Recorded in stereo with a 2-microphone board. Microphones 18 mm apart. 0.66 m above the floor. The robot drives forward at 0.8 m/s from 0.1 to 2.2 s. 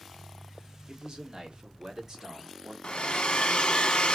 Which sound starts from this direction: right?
A man speaking, at 0.9 s.